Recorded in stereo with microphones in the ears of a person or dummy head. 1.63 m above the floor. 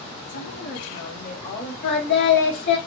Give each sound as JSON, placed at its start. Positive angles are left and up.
{"t": 0.3, "sound": "a woman speaking", "side_deg": 75, "distance_m": 1.0}
{"t": 1.8, "sound": "singing", "side_deg": 70, "distance_m": 1.2}